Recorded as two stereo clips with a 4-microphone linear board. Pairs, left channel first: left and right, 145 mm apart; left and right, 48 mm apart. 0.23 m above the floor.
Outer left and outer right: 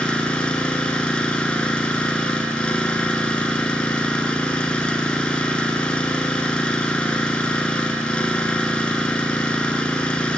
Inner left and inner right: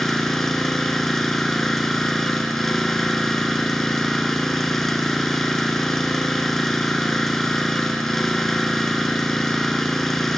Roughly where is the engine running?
Centre.